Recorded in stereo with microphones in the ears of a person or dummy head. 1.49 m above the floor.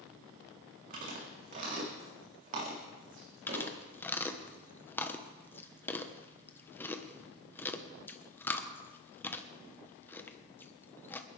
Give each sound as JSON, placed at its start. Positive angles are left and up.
{"t": 0.9, "sound": "chewing", "side_deg": -45, "distance_m": 3.5}
{"t": 3.5, "sound": "chewing", "side_deg": 10, "distance_m": 1.1}